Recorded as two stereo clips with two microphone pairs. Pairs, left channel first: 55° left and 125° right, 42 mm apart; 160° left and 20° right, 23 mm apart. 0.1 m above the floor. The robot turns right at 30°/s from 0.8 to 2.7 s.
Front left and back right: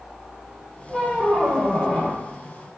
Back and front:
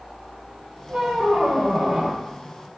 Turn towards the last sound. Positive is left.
turn(degrees=35)